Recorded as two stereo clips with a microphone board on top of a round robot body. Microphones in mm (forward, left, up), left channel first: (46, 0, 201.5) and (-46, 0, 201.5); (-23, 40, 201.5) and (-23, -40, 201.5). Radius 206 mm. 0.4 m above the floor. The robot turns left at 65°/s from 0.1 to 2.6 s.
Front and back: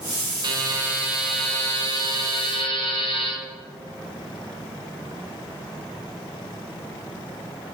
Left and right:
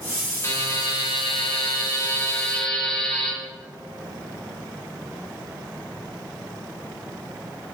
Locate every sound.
0.4 s a buzzer: 145° left, 1.7 m; by 3.3 s 5° left, 1.7 m